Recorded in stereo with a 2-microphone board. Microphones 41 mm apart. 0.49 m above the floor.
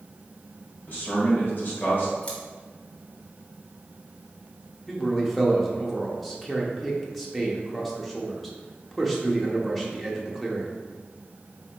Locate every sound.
0.9 s a man speaking: 60° left (ahead or behind), 1.7 m
2.2 s scissors: 35° left (ahead or behind), 1.4 m
4.9 s a man speaking: 5° left (ahead or behind), 0.8 m